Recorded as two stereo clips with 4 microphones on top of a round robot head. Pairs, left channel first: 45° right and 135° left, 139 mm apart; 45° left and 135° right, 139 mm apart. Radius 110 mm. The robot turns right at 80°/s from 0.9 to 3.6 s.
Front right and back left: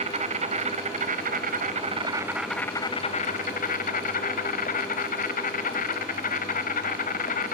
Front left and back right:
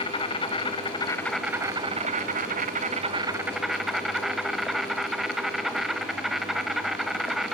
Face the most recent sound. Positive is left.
turn(degrees=-45)